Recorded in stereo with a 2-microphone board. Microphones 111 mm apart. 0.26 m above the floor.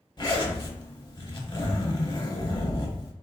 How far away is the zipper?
About 0.6 m.